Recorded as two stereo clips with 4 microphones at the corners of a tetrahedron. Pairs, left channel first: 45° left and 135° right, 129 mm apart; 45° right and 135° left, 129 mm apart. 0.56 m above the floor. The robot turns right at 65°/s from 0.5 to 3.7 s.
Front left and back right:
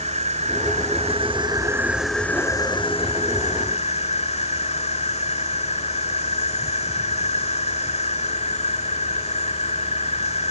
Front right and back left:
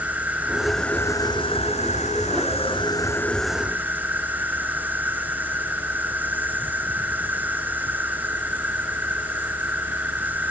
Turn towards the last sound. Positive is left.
turn(degrees=60)